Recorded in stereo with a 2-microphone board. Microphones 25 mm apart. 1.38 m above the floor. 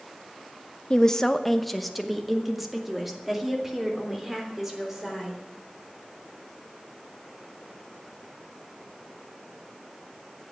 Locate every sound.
0.9 s a woman speaking: 30° left (ahead or behind), 0.6 m; by 5.4 s 20° right (ahead or behind), 4.5 m